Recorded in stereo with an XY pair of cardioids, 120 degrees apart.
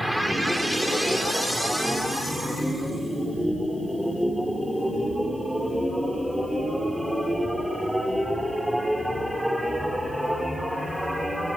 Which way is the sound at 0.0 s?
5° right.